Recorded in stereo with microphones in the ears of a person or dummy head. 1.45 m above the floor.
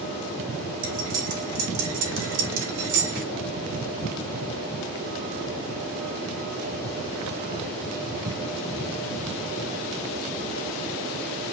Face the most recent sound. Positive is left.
turn(degrees=-70)  # may be behind; listen again after turning